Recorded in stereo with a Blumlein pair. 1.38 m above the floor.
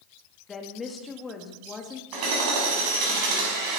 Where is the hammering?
45° right, 5 m.